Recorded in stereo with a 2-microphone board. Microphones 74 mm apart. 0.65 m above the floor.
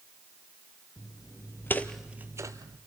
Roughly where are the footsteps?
Left.